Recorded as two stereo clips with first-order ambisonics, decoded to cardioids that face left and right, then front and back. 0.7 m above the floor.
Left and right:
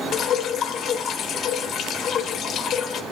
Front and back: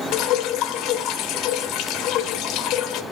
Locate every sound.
0.1 s dripping: 35° left, 1.1 m